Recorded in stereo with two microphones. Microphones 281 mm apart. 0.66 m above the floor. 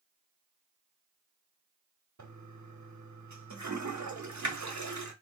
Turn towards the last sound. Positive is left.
turn(degrees=-80)